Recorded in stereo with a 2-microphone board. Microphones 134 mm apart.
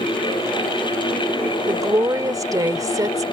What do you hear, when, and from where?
1.7 s a woman speaking: 25° right (ahead or behind)